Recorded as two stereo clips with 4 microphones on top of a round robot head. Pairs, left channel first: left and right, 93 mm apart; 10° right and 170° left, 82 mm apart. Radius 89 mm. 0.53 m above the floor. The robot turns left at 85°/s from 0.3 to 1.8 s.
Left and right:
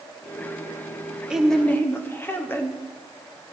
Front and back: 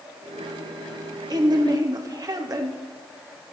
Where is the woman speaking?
165° right, 1.6 m; by 2.8 s 150° left, 1.6 m.